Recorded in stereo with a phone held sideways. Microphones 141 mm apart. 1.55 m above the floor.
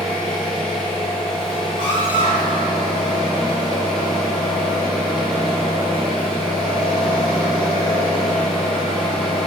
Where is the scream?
50° right (ahead or behind), 1.5 m.